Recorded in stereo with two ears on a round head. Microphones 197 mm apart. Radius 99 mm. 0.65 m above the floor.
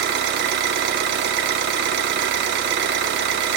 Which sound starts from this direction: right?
An engine running, at 0.0 s.